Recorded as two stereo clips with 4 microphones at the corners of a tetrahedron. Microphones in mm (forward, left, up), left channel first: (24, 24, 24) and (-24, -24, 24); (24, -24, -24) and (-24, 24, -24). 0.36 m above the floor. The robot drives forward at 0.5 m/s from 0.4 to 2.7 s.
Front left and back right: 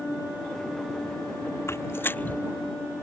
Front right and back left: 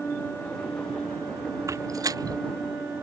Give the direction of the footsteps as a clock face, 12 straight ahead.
9 o'clock.